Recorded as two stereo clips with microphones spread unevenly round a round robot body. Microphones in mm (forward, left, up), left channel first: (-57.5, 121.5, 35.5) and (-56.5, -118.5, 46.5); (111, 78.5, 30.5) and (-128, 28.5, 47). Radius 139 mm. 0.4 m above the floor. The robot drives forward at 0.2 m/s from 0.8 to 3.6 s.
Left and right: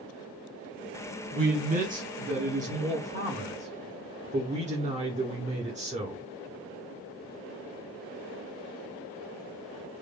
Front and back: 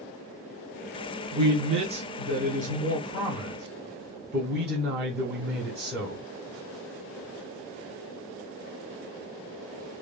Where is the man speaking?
105° right, 1.1 m; by 6.2 s 140° right, 1.2 m.